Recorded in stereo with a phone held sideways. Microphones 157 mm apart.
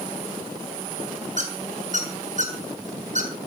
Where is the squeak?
55° right (ahead or behind), 3 m.